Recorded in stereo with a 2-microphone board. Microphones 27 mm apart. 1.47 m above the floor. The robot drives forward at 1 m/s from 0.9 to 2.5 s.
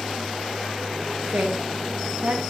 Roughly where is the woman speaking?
Right.